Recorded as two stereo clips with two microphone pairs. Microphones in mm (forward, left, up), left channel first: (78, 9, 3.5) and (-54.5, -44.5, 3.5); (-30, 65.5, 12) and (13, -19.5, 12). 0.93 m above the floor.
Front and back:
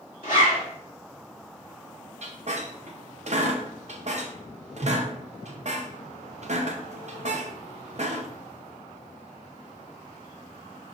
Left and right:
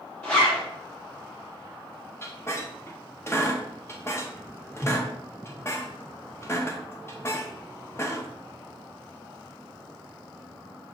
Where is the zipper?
45° left, 2 m.